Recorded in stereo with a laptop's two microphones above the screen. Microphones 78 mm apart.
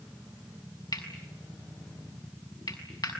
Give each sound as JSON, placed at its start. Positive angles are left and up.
{"t": 0.9, "sound": "cutlery clinking", "side_deg": 60, "distance_m": 6.0}